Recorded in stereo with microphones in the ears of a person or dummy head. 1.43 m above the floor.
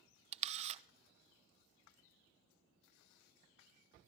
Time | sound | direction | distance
0.3 | a camera shutter | 40° right (ahead or behind) | 0.7 m